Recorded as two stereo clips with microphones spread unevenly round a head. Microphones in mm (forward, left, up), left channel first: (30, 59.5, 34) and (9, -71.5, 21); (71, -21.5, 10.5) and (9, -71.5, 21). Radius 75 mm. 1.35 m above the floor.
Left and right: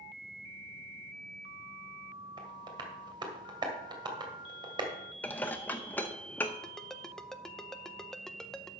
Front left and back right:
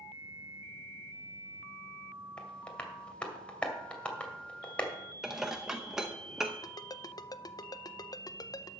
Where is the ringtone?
5° right, 0.7 m.